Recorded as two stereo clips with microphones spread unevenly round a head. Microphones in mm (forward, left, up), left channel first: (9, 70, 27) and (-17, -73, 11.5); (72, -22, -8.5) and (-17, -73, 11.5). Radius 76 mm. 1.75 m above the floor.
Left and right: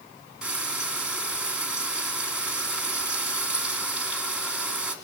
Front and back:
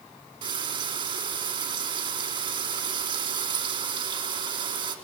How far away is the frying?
About 3 m.